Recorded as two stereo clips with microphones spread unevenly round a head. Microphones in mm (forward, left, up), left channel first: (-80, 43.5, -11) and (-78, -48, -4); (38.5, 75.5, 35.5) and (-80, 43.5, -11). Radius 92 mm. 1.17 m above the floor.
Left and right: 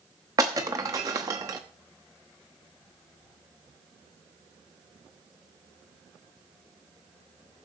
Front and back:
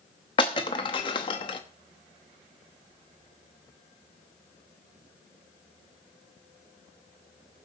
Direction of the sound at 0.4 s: 30° right.